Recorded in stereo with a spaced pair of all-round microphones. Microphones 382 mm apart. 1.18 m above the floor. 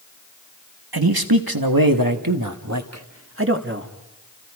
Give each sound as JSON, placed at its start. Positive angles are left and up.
{"t": 0.9, "sound": "a man speaking", "side_deg": -85, "distance_m": 1.7}